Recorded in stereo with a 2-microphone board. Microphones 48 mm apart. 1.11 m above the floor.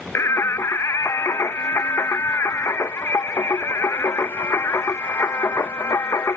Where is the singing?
70° left (ahead or behind).